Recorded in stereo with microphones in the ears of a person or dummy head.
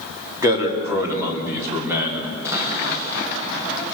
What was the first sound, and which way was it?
A man speaking, 20° right (ahead or behind).